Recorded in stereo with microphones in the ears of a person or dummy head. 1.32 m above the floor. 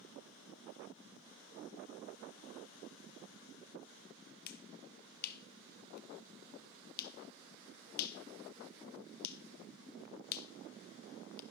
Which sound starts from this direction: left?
A finger snap, at 4.5 s.